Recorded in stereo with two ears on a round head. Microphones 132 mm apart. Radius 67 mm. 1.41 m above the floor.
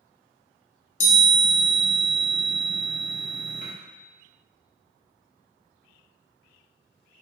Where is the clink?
I don't hear a clink.